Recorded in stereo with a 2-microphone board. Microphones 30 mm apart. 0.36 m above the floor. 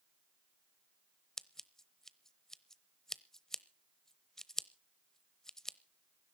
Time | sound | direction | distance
1.4 | scissors | 15° left (ahead or behind) | 0.8 m